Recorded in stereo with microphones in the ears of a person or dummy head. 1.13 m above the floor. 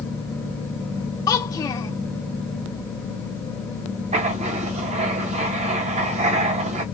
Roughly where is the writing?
Right.